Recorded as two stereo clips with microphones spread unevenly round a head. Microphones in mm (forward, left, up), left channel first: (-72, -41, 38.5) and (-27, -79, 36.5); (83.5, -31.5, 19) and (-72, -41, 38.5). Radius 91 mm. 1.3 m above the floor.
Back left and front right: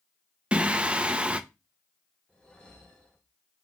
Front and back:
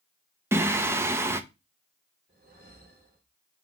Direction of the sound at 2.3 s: 145° right.